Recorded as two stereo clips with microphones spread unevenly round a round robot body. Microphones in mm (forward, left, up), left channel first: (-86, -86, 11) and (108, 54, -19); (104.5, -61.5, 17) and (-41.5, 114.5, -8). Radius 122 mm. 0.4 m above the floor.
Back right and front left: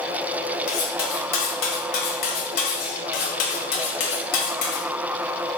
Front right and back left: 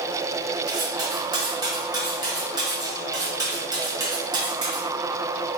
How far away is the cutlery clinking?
About 1.4 m.